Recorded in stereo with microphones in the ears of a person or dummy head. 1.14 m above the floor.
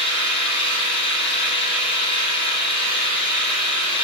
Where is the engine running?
30° left (ahead or behind), 1.0 m.